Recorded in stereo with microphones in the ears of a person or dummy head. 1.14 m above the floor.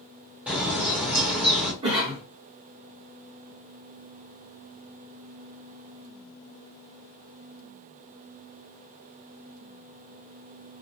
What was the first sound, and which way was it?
A bird, 5° right (ahead or behind).